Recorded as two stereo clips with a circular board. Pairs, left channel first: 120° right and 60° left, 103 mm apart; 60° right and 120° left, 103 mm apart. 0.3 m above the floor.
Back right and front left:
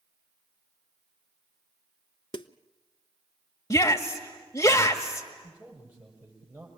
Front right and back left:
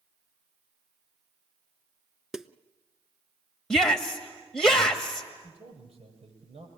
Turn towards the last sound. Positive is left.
turn(degrees=135)